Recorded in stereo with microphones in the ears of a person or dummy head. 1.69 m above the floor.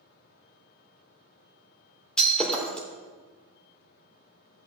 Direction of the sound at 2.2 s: 5° left (ahead or behind).